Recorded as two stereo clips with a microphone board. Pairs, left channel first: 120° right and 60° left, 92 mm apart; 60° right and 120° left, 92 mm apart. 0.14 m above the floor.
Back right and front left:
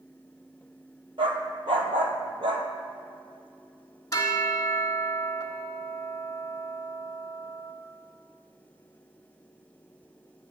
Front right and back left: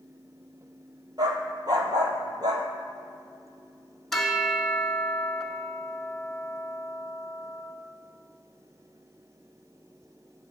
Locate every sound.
1.2 s a dog barking: 80° left, 0.8 m
4.1 s a bell: 145° right, 0.7 m